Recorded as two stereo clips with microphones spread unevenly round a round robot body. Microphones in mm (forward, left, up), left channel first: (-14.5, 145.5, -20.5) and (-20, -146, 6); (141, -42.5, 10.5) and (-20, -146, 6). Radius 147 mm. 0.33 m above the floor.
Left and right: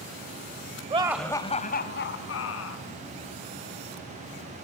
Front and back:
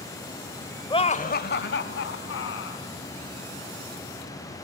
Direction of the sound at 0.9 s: 25° right.